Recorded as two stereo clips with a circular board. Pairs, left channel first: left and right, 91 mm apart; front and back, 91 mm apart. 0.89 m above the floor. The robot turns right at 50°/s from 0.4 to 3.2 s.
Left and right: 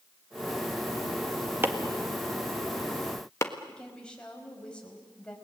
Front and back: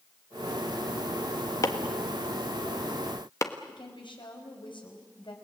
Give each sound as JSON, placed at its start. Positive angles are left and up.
{"t": 1.6, "sound": "chopping", "azimuth_deg": -35, "distance_m": 1.5}
{"t": 3.7, "sound": "a woman speaking", "azimuth_deg": 10, "distance_m": 5.0}